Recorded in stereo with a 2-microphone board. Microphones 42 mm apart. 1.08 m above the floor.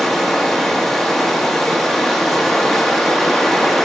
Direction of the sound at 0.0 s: 10° left (ahead or behind).